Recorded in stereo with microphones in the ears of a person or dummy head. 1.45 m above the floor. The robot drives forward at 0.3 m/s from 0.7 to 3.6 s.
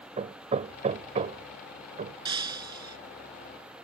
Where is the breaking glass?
25° right (ahead or behind).